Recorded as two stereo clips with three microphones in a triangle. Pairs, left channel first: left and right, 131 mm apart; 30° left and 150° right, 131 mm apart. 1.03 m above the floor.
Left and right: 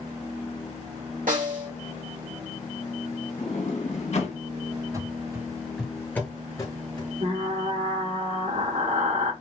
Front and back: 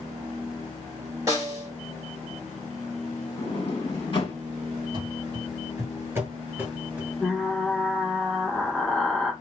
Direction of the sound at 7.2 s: 55° right.